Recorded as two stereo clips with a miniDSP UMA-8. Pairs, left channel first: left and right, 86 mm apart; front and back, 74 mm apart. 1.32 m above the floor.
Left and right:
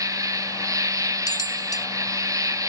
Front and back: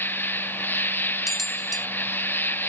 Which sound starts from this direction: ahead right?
An insect, at 0.0 s.